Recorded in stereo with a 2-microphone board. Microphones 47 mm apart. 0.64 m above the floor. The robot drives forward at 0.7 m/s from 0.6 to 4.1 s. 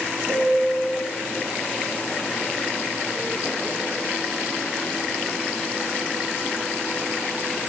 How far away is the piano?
About 3.5 m.